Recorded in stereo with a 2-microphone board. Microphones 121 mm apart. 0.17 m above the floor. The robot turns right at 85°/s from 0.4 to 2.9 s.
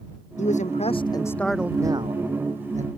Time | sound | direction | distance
0.4 | a man speaking | 85° left | ?